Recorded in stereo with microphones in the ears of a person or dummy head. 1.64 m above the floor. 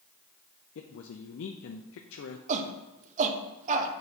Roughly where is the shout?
Right.